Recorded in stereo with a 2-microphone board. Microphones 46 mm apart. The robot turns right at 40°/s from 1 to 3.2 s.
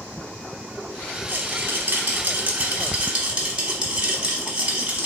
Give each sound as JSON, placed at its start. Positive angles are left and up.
{"t": 1.3, "sound": "a rattle", "azimuth_deg": -110, "distance_m": 0.9}